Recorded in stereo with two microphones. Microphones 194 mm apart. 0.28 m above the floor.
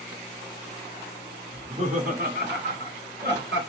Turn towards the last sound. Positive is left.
turn(degrees=-70)  # may be behind; listen again after turning